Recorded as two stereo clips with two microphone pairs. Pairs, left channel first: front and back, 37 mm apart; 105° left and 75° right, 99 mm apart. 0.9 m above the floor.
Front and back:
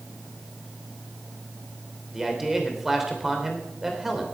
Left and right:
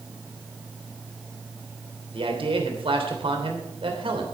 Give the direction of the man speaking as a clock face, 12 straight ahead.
3 o'clock.